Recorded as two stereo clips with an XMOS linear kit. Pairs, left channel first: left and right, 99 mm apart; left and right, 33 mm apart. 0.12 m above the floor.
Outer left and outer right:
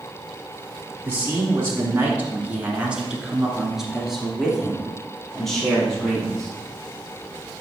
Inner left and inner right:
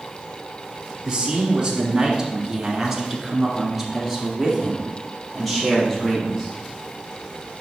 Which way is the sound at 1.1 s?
25° right (ahead or behind).